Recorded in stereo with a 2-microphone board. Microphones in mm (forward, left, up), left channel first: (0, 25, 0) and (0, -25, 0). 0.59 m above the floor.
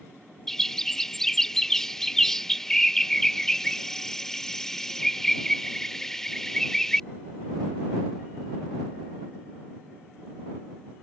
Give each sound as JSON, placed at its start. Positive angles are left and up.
{"t": 0.5, "sound": "a bird", "side_deg": 10}